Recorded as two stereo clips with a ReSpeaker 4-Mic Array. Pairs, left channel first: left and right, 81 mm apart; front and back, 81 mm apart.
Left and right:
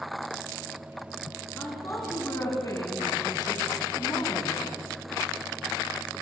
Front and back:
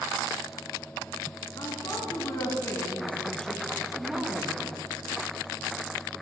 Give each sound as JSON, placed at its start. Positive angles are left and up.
{"t": 1.6, "sound": "a woman speaking", "azimuth_deg": 30, "distance_m": 2.5}